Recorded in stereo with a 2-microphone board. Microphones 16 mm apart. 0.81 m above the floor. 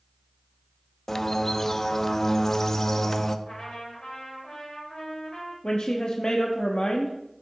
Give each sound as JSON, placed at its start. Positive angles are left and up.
{"t": 1.1, "sound": "a bird", "side_deg": 30, "distance_m": 0.5}
{"t": 3.5, "sound": "a trumpet", "side_deg": 55, "distance_m": 3.5}
{"t": 5.6, "sound": "a woman speaking", "side_deg": 70, "distance_m": 0.9}